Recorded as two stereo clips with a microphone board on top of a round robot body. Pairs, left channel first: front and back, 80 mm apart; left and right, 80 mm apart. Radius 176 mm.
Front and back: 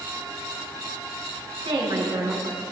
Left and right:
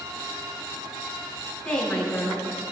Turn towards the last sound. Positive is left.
turn(degrees=165)